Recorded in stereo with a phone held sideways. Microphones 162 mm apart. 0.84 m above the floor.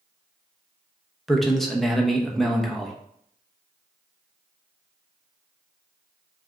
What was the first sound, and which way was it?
A man speaking, centre (ahead or behind).